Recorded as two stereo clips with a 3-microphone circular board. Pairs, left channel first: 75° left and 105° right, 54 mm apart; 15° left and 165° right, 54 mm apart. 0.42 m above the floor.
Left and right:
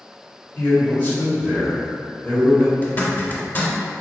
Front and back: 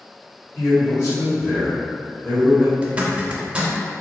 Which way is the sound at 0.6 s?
20° left.